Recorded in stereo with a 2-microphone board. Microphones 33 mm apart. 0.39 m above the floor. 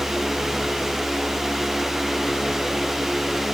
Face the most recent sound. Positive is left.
No sound to turn to.